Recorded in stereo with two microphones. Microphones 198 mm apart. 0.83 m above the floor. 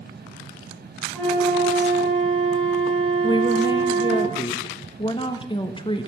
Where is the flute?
5° left (ahead or behind), 6.5 m.